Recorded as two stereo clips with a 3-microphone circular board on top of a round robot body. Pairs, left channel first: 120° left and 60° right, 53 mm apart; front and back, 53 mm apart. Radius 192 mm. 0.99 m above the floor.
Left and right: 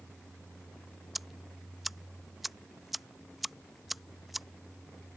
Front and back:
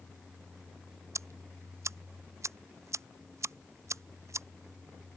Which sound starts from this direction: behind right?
Ticking, at 1.1 s.